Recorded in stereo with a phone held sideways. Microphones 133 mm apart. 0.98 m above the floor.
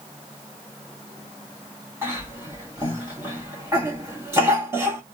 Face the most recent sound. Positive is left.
turn(degrees=-20)  # may be behind; listen again after turning